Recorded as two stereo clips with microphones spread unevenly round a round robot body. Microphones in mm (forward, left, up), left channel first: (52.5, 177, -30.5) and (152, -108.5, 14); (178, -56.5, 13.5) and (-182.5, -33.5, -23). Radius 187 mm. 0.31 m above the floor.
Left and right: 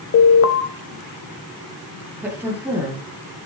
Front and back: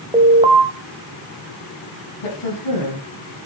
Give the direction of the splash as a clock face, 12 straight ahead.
I don't hear a splash.